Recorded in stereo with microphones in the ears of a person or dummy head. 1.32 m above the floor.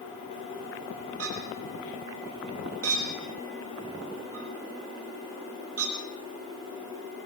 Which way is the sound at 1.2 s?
90° right.